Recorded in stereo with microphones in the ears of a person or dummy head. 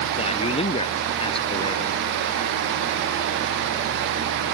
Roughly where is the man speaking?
Left.